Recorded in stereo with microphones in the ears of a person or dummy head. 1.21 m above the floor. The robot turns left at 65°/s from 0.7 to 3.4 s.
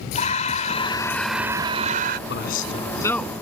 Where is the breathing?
40° left; by 2.2 s 60° right.